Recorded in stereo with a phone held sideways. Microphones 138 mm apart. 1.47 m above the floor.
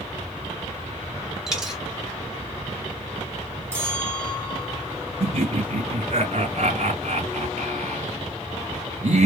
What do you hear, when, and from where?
1.5 s a dropped coin: 5° right (ahead or behind), 1.9 m
3.7 s a bell: 20° right (ahead or behind), 3.5 m
5.2 s laughter: 55° right (ahead or behind), 2.5 m